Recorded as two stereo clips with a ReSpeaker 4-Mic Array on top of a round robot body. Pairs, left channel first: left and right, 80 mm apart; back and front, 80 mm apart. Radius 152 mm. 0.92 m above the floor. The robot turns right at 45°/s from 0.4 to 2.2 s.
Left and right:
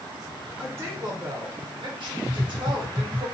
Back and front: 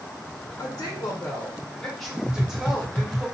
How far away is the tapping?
About 1.0 m.